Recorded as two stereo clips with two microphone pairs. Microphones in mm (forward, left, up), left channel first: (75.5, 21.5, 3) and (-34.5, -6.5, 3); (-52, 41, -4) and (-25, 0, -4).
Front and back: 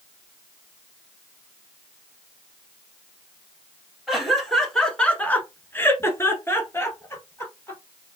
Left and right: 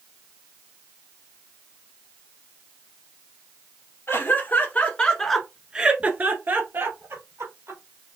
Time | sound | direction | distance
4.1 | laughter | 105° left | 2 m